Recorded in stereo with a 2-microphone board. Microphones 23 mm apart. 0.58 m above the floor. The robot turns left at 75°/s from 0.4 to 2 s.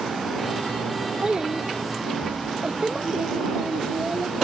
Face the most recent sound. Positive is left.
turn(degrees=-105)